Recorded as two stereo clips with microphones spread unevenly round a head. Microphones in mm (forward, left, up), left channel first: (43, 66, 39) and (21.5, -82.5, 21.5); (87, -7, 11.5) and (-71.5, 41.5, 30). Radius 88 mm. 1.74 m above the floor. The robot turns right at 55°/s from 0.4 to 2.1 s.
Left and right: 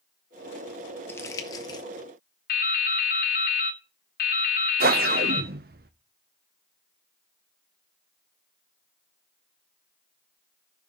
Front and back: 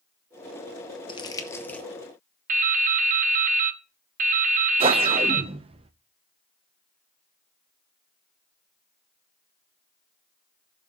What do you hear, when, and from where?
1.1 s crumpling: 30° left, 0.9 m; by 1.9 s 75° left, 0.9 m
2.5 s dripping: 125° left, 0.9 m
4.8 s a whoosh: 140° right, 0.7 m